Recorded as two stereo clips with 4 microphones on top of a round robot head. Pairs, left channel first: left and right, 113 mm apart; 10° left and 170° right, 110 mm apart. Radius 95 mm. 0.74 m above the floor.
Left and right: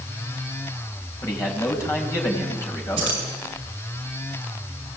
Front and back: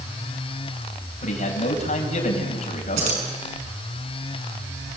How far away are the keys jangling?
About 6 m.